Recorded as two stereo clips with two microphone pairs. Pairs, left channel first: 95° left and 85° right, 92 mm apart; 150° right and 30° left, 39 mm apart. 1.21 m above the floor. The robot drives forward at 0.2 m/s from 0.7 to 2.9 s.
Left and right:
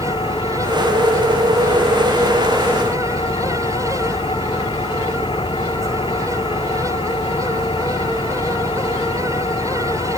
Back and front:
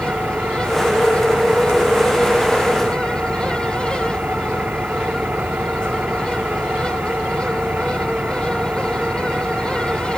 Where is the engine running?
75° left; by 10.2 s 80° left.